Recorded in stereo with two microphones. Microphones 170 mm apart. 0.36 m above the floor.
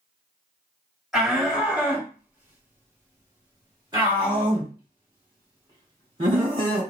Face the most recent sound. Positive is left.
turn(degrees=-30)  # may be behind; listen again after turning